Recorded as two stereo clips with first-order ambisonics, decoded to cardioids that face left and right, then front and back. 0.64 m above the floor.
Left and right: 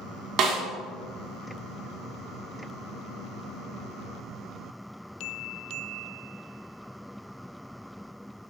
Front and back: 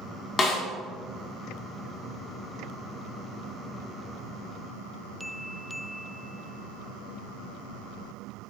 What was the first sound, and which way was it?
A snare drum, 60° right.